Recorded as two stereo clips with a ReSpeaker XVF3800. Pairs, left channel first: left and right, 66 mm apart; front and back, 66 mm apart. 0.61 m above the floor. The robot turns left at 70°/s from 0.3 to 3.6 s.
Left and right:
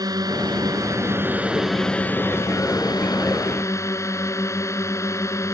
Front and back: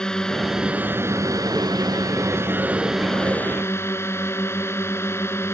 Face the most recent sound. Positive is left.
turn(degrees=50)